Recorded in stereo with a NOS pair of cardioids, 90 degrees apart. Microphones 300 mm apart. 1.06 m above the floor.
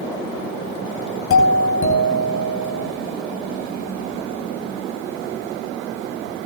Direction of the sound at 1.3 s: 45° left.